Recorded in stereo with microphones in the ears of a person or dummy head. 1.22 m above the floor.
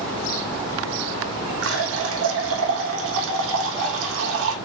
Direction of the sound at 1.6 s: 65° right (ahead or behind).